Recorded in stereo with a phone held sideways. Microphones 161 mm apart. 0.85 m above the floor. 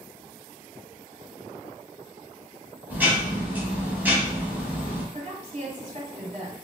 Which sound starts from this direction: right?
A woman speaking, at 5.1 s.